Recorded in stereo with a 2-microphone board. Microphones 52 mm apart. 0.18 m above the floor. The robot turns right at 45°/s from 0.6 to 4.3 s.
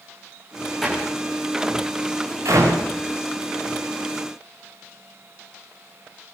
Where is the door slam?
5° left (ahead or behind), 9.5 m; by 2.9 s 85° right, 9.5 m.